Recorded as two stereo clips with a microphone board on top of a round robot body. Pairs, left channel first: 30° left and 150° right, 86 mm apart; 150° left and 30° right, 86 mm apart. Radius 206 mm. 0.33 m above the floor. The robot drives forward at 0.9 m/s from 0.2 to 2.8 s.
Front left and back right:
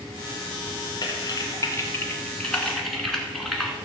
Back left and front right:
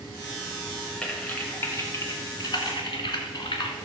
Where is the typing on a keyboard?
70° left, 2 m; by 3.8 s 115° left, 2 m.